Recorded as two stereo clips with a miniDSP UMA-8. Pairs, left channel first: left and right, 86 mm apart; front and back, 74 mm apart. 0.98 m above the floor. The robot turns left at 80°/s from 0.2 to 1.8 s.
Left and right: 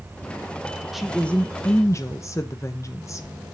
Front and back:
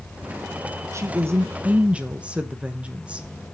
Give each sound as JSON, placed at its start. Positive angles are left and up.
{"t": 0.9, "sound": "a woman speaking", "azimuth_deg": -175, "distance_m": 0.9}